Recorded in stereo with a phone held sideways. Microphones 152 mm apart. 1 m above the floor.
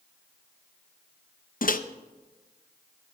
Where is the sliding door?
No sliding door in this recording.